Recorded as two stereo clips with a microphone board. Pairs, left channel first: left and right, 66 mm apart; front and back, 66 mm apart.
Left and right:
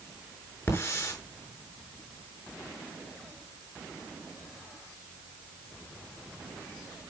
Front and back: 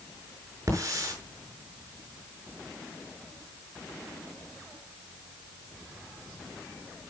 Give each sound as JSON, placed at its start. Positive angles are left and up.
{"t": 0.7, "sound": "a hiss", "azimuth_deg": 140, "distance_m": 6.5}